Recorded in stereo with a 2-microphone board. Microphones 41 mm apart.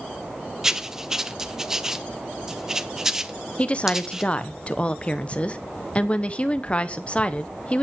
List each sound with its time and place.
0.6 s writing: 15° right (ahead or behind), 0.7 m
3.6 s a woman speaking: 30° left (ahead or behind), 0.9 m